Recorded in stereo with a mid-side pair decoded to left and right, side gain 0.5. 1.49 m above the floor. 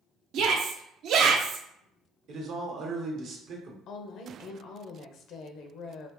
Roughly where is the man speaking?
Ahead right.